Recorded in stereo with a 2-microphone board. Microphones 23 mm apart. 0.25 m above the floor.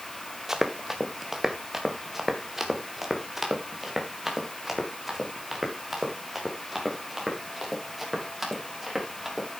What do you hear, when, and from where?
0.5 s running footsteps: 15° right (ahead or behind), 1.7 m; by 9.5 s 5° right (ahead or behind), 6.5 m